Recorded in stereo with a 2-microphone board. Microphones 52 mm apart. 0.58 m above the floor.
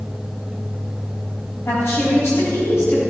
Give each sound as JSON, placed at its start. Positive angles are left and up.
{"t": 1.6, "sound": "a woman speaking", "side_deg": 55, "distance_m": 4.5}